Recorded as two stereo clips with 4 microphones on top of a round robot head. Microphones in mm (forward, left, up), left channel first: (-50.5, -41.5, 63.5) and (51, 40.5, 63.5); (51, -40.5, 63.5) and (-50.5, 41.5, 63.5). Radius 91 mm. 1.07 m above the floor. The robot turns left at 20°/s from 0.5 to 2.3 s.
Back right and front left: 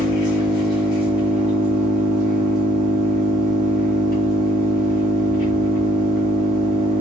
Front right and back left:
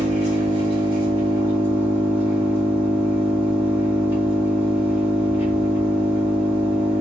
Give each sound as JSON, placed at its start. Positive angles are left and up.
{"t": 0.0, "sound": "an engine running", "azimuth_deg": 100, "distance_m": 1.7}